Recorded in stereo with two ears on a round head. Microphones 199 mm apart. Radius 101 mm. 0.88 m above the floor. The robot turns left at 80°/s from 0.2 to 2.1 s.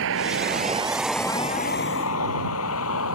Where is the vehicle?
70° right (ahead or behind); by 3.2 s 75° left (ahead or behind).